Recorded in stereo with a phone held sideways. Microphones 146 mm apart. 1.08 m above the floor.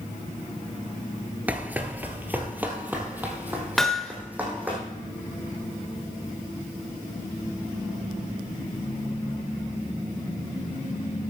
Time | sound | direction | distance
1.5 | running footsteps | 10° right (ahead or behind) | 1.1 m
3.8 | hammering | 5° left (ahead or behind) | 0.8 m